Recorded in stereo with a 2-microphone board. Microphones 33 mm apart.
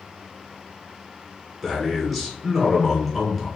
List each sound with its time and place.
1.6 s a man speaking: 5° left (ahead or behind), 1.3 m